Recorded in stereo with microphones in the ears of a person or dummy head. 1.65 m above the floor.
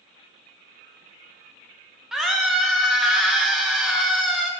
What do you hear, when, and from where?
2.1 s a scream: centre (ahead or behind), 0.6 m